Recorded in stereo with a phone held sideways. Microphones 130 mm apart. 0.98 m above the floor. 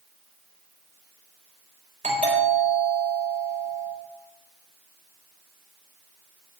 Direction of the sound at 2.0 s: 75° right (ahead or behind).